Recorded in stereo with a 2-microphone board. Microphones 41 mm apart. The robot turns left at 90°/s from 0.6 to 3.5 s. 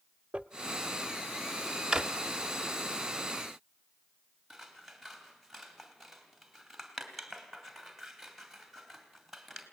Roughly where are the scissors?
Centre.